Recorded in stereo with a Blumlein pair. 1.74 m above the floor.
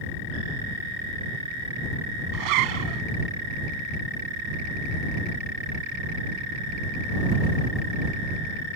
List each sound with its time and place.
2.3 s a zipper: 40° right